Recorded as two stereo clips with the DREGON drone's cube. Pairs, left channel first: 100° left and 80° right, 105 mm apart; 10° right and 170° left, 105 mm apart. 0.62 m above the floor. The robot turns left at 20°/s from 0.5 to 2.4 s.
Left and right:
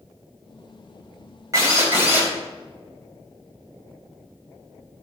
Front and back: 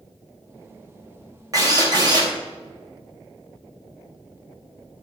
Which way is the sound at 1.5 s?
135° right.